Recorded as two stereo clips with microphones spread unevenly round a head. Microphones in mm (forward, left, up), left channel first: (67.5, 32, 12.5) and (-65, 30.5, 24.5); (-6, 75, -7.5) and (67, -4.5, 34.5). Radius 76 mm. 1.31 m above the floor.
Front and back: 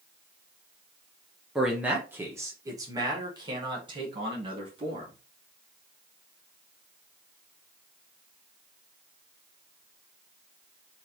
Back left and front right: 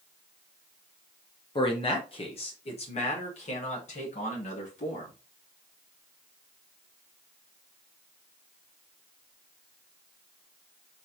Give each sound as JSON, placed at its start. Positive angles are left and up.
{"t": 1.6, "sound": "a man speaking", "azimuth_deg": 95, "distance_m": 1.1}